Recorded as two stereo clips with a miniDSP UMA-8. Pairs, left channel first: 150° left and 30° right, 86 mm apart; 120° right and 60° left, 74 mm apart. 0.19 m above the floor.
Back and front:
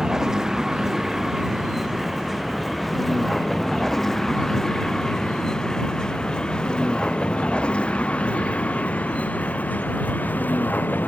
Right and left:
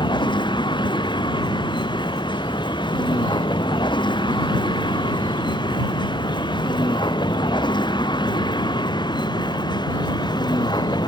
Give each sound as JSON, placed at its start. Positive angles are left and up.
{"t": 0.0, "sound": "a vehicle", "azimuth_deg": -115}